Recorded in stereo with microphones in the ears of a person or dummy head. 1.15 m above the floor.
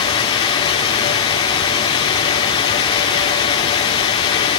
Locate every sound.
0.0 s running water: 20° left (ahead or behind), 1.1 m